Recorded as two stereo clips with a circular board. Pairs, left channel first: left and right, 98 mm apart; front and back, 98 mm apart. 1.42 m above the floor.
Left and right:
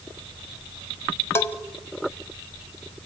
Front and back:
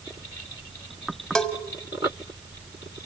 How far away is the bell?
About 1.3 m.